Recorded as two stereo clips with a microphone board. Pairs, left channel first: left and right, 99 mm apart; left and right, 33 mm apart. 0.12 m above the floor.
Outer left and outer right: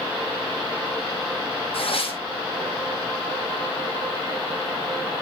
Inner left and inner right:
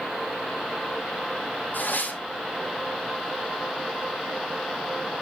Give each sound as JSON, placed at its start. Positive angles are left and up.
{"t": 1.7, "sound": "tearing paper", "side_deg": 70, "distance_m": 1.9}